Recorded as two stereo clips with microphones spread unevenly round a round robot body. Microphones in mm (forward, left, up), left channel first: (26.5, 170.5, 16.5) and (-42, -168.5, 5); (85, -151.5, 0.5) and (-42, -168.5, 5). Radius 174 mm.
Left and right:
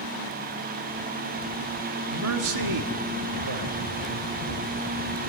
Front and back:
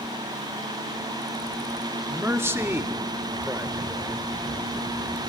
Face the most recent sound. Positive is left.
turn(degrees=-100)